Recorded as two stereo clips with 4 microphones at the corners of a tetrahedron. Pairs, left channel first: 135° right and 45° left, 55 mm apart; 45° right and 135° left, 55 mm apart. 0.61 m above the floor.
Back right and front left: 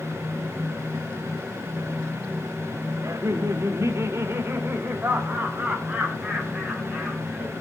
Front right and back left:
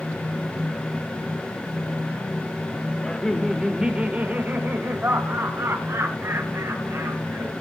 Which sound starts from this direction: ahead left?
Laughter, at 3.0 s.